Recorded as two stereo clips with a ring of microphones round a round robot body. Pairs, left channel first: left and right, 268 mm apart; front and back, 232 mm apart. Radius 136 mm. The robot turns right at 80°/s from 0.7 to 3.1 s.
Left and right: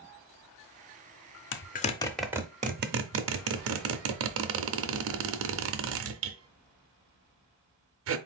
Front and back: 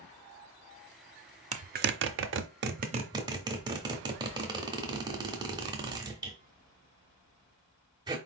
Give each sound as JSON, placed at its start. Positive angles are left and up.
{"t": 1.5, "sound": "a zipper", "azimuth_deg": 125, "distance_m": 0.7}